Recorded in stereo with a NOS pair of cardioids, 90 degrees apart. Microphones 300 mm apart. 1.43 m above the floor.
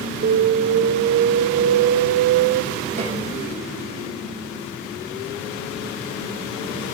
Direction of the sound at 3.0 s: 20° right.